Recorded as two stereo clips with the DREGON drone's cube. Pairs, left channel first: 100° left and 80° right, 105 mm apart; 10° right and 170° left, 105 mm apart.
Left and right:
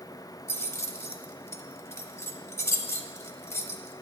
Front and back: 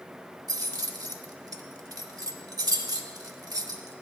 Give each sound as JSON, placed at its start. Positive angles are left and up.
{"t": 0.5, "sound": "keys jangling", "azimuth_deg": 145, "distance_m": 0.7}